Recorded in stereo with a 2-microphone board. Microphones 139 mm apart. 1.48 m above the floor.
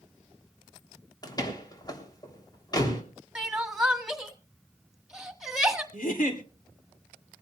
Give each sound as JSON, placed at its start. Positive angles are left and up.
{"t": 1.2, "sound": "a door slam", "side_deg": 30, "distance_m": 3.0}
{"t": 3.4, "sound": "crying", "side_deg": -5, "distance_m": 1.6}
{"t": 5.9, "sound": "a giggle", "side_deg": 75, "distance_m": 2.5}